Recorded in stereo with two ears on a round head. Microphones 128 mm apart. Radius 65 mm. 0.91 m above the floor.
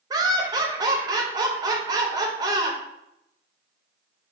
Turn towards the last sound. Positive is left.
turn(degrees=-25)  # may be behind; listen again after turning